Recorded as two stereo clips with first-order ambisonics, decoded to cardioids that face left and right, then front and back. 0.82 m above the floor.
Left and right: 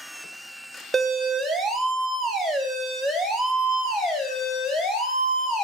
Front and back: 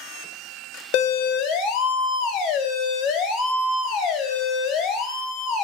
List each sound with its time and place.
0.9 s a siren: 10° right, 3 m; by 5.7 s 35° left, 4.5 m